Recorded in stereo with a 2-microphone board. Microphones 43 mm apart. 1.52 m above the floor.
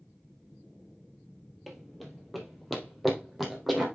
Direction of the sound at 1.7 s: 5° right (ahead or behind).